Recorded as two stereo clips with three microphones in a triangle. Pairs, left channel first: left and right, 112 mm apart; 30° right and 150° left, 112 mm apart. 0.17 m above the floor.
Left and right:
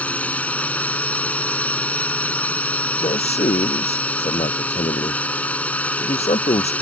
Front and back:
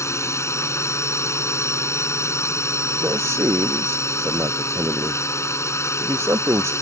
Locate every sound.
0.0 s a drone: 20° left
3.0 s a man speaking: 85° left